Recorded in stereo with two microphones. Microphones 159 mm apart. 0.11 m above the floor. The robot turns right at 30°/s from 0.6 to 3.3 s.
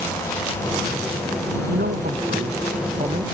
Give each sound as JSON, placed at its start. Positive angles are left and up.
{"t": 1.7, "sound": "a man speaking", "azimuth_deg": -85}